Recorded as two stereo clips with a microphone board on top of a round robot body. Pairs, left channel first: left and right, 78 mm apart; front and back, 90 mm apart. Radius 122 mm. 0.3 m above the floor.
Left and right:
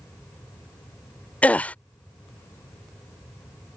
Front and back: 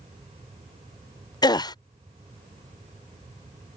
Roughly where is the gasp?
Ahead.